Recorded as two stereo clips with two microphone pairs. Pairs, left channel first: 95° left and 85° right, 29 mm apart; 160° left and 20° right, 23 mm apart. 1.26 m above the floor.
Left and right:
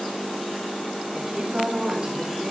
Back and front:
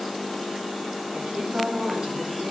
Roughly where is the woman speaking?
Ahead right.